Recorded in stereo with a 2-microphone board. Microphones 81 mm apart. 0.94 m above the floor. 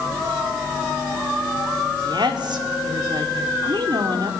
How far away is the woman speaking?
About 2.5 m.